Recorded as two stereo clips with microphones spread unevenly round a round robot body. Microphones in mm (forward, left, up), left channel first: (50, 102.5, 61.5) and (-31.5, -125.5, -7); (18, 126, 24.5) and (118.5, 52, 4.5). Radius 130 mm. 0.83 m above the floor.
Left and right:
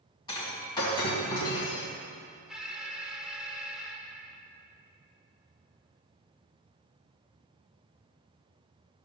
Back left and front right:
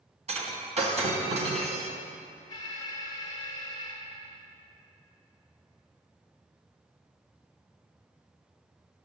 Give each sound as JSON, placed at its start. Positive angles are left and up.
{"t": 0.3, "sound": "breaking glass", "azimuth_deg": 0, "distance_m": 3.0}
{"t": 2.5, "sound": "an alarm", "azimuth_deg": -170, "distance_m": 1.1}